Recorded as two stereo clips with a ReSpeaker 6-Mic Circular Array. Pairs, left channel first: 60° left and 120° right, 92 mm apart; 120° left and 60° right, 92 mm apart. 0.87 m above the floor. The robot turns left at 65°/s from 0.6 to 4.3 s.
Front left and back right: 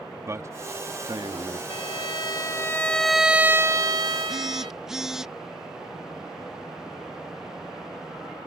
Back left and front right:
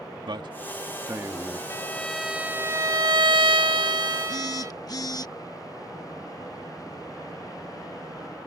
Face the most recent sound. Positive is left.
turn(degrees=155)